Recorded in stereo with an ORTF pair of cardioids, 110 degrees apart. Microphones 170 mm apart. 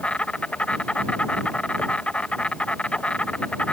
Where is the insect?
5° left.